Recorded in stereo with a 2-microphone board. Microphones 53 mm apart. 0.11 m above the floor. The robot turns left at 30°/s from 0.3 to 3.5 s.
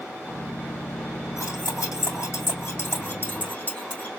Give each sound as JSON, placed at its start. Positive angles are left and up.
{"t": 1.4, "sound": "cutlery clinking", "side_deg": 75, "distance_m": 4.0}